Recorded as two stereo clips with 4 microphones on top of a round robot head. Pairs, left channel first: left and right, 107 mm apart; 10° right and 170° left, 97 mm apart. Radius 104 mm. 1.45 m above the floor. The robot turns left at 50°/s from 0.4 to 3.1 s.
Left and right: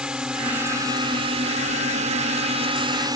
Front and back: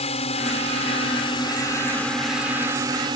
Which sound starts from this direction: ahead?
A drone, at 0.0 s.